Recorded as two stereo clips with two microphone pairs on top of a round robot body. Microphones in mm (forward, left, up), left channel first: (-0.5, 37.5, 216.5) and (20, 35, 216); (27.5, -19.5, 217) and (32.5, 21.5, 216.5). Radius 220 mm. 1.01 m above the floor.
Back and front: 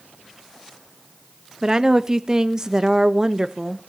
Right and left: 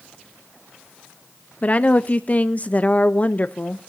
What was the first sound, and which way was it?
A woman speaking, 55° right.